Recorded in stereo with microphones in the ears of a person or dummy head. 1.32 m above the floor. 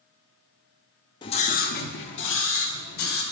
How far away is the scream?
About 0.5 m.